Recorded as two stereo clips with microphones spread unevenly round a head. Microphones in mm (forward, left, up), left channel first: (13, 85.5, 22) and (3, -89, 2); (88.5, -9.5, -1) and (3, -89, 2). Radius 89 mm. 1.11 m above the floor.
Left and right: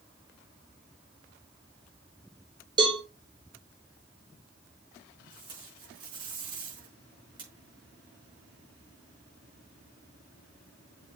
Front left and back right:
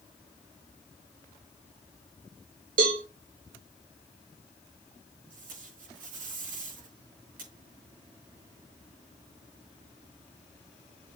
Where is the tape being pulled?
160° right, 5 m.